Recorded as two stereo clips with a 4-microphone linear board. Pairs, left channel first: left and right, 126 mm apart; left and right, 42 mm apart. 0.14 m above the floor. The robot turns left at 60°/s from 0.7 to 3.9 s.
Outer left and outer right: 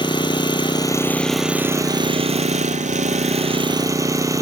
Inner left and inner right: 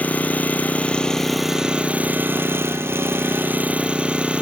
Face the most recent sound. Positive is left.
turn(degrees=-155)